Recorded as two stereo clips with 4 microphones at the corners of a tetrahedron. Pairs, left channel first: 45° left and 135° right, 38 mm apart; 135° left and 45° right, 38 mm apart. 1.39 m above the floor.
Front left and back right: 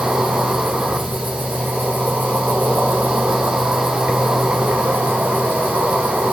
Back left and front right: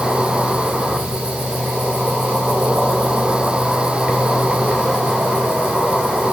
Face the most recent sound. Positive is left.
turn(degrees=-115)